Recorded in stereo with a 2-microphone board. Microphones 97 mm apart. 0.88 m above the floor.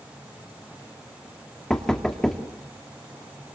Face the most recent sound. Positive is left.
turn(degrees=5)  # may be behind; listen again after turning